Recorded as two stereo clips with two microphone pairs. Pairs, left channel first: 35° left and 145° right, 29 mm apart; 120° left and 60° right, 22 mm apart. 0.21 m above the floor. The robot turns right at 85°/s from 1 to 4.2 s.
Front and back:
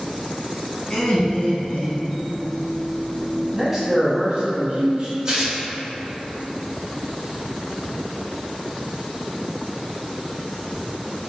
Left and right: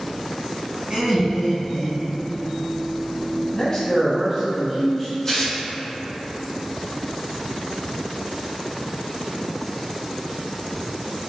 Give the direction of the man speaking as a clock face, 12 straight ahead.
7 o'clock.